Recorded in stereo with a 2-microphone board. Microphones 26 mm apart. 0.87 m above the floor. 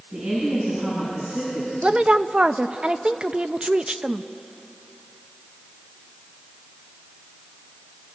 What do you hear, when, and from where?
0.1 s a woman speaking: 45° right (ahead or behind), 8.5 m
1.8 s a woman speaking: 35° right (ahead or behind), 0.6 m